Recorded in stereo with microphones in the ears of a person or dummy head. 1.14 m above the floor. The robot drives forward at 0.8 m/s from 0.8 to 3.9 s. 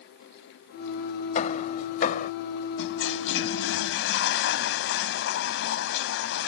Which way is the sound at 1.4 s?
40° left (ahead or behind).